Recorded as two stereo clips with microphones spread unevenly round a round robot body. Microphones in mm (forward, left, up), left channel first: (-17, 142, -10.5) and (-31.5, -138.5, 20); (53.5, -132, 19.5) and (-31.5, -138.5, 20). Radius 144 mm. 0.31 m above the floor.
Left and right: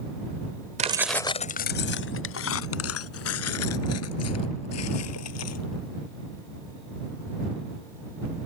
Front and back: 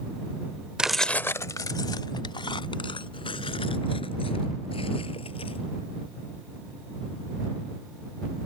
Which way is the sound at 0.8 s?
115° right.